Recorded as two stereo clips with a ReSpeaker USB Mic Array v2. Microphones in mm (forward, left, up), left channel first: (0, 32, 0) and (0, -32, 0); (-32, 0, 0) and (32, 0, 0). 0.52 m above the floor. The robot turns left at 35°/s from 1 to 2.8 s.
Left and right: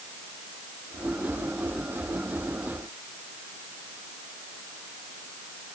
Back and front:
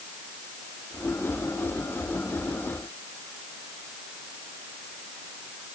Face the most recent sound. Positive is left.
No sound to turn to.